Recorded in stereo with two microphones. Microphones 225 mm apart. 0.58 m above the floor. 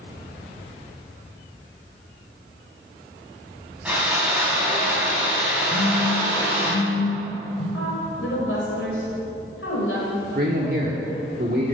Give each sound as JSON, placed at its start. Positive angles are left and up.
{"t": 3.9, "sound": "sawing", "side_deg": -5, "distance_m": 4.0}
{"t": 5.7, "sound": "a phone buzzing", "side_deg": 35, "distance_m": 2.5}
{"t": 7.7, "sound": "a woman speaking", "side_deg": 70, "distance_m": 3.0}
{"t": 10.3, "sound": "a man speaking", "side_deg": -45, "distance_m": 1.1}